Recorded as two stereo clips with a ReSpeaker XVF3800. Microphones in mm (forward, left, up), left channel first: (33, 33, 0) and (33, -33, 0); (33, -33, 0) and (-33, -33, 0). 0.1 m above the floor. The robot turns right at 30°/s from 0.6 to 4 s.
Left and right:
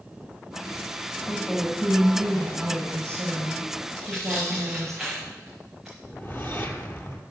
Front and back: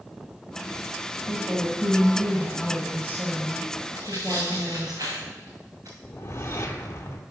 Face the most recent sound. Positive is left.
turn(degrees=40)